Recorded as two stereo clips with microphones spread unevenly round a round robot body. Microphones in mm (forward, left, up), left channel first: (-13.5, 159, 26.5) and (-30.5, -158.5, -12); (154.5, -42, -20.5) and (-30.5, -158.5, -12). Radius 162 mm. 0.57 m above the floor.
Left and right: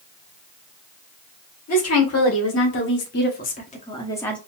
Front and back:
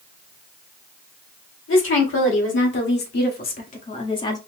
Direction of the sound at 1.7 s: 45° left.